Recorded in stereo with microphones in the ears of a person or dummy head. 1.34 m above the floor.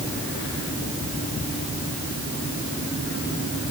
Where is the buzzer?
No buzzer in this recording.